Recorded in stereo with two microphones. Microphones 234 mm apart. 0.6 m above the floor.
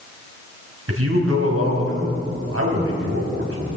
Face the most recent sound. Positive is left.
turn(degrees=-80)